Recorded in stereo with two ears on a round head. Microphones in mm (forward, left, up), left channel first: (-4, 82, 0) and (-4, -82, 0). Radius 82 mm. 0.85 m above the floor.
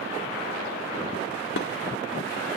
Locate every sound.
1.6 s dishes clattering: 65° left (ahead or behind), 1.5 m